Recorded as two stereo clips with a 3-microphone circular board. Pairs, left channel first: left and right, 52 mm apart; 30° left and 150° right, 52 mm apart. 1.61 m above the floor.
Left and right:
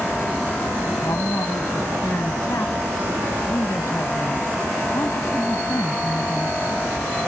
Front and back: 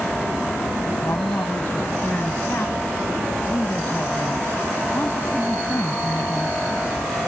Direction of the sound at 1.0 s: 75° left.